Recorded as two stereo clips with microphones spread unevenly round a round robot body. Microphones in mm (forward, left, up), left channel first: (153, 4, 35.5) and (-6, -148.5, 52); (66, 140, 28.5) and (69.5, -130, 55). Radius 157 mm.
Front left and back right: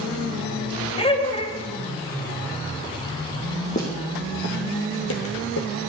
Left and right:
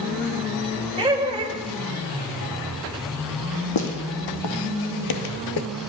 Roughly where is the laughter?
Ahead.